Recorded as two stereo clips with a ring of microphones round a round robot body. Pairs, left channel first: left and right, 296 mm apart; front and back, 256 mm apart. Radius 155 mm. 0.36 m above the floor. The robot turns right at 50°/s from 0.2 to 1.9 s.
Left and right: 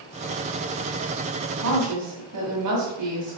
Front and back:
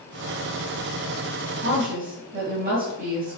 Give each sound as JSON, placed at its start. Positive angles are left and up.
{"t": 1.6, "sound": "a woman speaking", "azimuth_deg": -135, "distance_m": 2.5}